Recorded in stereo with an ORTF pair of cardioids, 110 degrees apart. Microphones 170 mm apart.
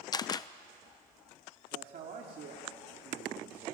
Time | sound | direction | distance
0.1 | a camera shutter | 25° left | 0.8 m
1.7 | a man speaking | 55° right | 2.5 m